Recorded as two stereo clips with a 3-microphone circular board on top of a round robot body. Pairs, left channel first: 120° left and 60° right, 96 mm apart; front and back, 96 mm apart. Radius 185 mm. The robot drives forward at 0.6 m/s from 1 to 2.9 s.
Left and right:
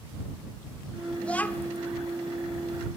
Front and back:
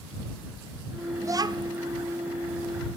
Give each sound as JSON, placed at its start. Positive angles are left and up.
{"t": 1.2, "sound": "a child speaking", "azimuth_deg": -170, "distance_m": 0.6}